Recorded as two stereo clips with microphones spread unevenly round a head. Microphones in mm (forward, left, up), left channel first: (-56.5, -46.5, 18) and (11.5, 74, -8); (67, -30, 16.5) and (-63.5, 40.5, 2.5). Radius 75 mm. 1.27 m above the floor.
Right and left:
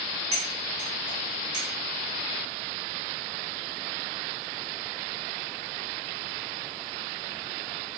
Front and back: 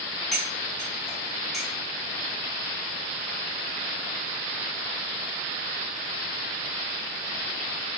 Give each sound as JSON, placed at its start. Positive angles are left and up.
{"t": 0.3, "sound": "cutlery clinking", "azimuth_deg": 55, "distance_m": 1.6}